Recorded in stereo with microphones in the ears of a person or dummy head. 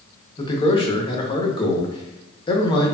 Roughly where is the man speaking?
Left.